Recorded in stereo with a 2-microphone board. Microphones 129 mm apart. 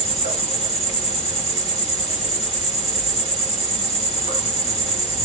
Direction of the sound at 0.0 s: 50° left (ahead or behind).